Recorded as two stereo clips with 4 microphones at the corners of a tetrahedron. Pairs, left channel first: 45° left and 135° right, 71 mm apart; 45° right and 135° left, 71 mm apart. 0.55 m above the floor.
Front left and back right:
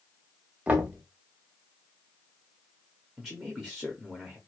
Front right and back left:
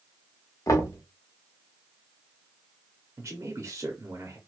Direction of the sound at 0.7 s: 70° right.